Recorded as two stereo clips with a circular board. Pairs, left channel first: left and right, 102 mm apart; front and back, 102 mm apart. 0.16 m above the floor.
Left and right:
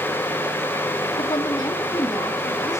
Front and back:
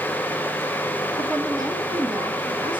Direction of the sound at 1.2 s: 125° left.